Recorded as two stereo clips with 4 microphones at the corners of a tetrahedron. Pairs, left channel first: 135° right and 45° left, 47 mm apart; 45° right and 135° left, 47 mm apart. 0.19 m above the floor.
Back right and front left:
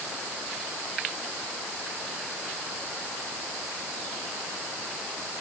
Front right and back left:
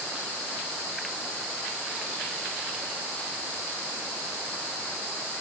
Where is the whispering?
I don't hear whispering.